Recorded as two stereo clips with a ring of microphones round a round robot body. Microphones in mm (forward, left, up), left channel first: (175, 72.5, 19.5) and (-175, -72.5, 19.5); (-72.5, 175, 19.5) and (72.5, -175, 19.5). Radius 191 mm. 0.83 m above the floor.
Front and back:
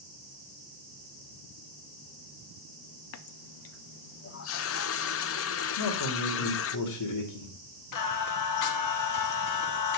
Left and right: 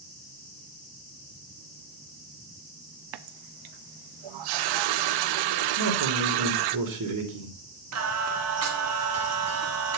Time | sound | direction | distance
3.1 | a running tap | 35° right | 0.5 m
5.8 | a man speaking | 20° right | 2.5 m
7.9 | singing | 20° right | 1.4 m